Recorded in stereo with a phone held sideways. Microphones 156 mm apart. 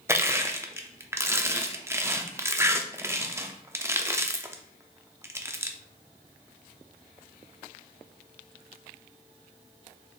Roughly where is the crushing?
Centre.